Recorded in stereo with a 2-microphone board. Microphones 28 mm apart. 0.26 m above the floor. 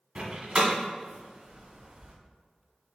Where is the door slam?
45° right (ahead or behind), 1.3 m.